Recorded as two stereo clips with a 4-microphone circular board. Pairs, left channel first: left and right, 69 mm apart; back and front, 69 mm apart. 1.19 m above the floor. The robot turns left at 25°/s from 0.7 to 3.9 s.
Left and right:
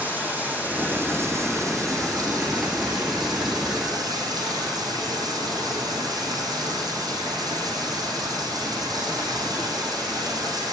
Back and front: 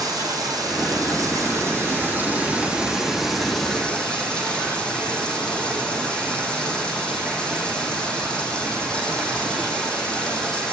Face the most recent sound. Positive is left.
turn(degrees=-105)